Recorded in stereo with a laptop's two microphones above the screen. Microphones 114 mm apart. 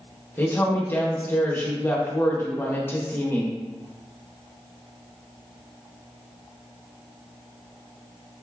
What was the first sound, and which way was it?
A woman speaking, 20° left (ahead or behind).